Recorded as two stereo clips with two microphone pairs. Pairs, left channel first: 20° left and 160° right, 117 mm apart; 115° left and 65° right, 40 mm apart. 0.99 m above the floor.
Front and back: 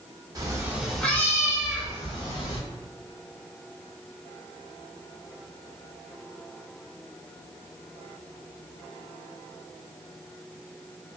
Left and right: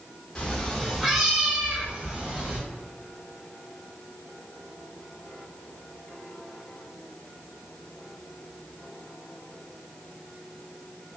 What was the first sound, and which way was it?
A cat meowing, 170° left.